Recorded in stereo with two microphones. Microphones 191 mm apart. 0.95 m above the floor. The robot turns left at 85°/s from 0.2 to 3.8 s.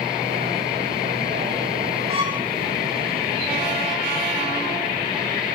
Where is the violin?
145° right, 2.5 m; by 2.5 s 175° right, 2.5 m.